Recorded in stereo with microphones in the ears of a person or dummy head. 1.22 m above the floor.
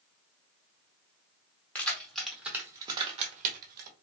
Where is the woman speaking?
No woman speaking in this recording.